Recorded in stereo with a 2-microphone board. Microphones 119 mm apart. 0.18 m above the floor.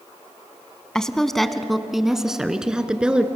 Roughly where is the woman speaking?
Centre.